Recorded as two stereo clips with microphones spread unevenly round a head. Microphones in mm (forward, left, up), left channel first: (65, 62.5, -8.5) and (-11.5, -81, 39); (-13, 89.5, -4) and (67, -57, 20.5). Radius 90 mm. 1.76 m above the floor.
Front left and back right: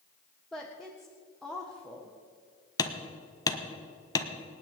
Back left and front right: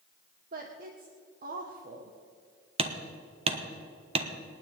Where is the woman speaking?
30° right, 1.5 m.